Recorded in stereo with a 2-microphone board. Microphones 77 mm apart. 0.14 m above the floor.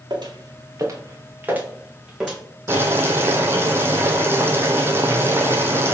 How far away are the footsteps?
About 1.5 m.